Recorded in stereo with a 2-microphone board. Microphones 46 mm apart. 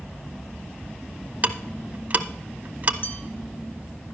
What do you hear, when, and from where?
1.4 s ticking: 35° right (ahead or behind), 0.6 m
3.0 s a bell: 55° left (ahead or behind), 1.8 m